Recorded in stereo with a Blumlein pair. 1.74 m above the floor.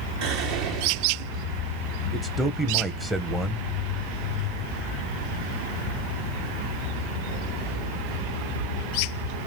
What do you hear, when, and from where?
0.2 s whispering: 40° right, 0.6 m
2.1 s a man speaking: 5° right, 0.6 m